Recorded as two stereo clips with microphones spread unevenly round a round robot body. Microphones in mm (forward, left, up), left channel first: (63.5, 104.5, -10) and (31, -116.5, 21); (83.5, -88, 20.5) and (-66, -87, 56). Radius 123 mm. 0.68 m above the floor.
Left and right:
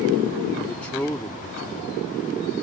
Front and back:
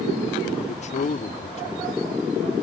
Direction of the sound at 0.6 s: Straight ahead.